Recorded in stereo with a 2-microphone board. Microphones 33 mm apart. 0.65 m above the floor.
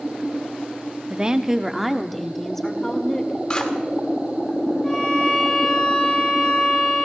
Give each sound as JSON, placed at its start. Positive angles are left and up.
{"t": 1.1, "sound": "a woman speaking", "side_deg": -30, "distance_m": 0.9}
{"t": 3.5, "sound": "scissors", "side_deg": 30, "distance_m": 2.0}
{"t": 4.8, "sound": "a violin", "side_deg": 20, "distance_m": 7.0}